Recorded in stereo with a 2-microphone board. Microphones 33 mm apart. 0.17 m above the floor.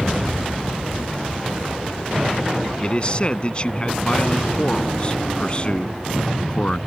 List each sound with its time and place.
2.8 s a man speaking: 35° left (ahead or behind)